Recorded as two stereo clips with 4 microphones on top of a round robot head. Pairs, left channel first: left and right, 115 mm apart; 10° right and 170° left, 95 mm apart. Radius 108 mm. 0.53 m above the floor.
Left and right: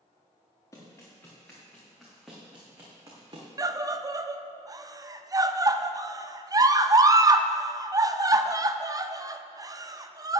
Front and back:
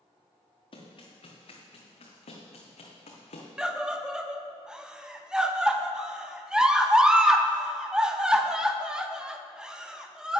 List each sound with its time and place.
0.7 s running footsteps: 20° left, 3 m; by 3.5 s 30° right, 1.9 m
3.6 s a scream: 115° right, 0.7 m